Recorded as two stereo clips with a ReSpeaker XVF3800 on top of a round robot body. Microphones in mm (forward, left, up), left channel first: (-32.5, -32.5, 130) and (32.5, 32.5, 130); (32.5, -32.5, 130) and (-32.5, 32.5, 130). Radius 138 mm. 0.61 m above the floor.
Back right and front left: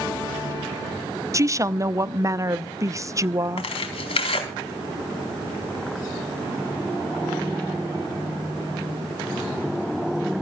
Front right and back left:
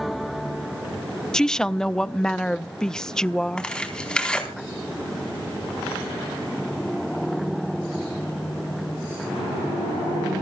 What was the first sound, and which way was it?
A woman speaking, 35° left.